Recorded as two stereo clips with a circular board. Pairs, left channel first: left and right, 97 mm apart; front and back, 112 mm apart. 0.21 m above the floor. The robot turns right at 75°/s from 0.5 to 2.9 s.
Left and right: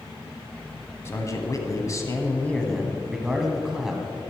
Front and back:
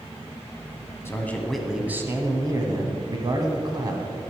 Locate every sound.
1.1 s a man speaking: 50° left, 1.3 m; by 4.2 s 170° right, 1.3 m